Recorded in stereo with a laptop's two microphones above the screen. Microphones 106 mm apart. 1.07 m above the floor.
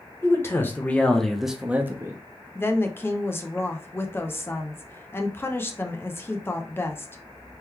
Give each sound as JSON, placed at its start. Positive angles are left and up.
{"t": 0.2, "sound": "a man speaking", "side_deg": 25, "distance_m": 1.2}
{"t": 2.5, "sound": "a woman speaking", "side_deg": 20, "distance_m": 0.5}